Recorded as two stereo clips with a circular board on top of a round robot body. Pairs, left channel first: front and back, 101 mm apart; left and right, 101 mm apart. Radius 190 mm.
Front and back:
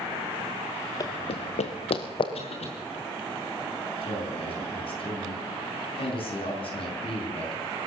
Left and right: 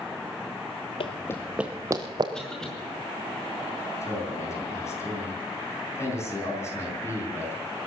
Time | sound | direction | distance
1.0 | running footsteps | 55° left | 0.8 m
2.3 | a cough | 5° left | 6.5 m
4.0 | a man speaking | 30° left | 6 m